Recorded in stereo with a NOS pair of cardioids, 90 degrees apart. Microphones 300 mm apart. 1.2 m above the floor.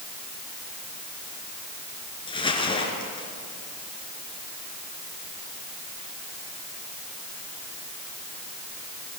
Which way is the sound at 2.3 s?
15° left.